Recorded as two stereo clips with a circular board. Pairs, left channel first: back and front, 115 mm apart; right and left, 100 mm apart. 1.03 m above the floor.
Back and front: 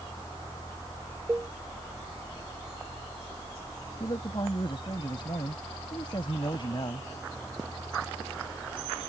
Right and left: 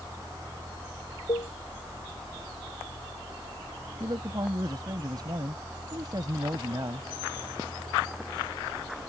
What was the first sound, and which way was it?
A cowbell, 75° right.